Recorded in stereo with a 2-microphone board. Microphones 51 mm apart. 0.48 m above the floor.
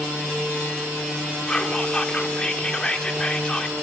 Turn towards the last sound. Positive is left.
turn(degrees=20)  # may be behind; listen again after turning